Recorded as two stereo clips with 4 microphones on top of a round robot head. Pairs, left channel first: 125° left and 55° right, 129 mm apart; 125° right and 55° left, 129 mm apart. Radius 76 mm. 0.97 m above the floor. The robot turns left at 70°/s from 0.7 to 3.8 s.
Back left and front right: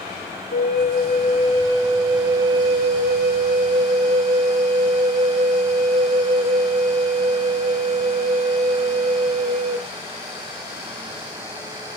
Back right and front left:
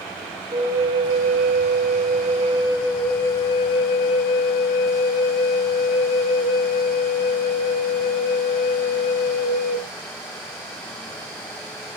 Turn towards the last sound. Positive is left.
turn(degrees=-85)